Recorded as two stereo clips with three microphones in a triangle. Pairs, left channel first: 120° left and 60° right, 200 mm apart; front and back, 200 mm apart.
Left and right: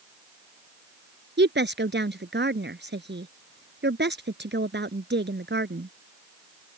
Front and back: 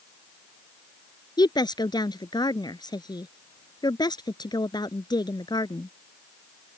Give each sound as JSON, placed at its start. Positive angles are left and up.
{"t": 1.4, "sound": "a woman speaking", "azimuth_deg": -70}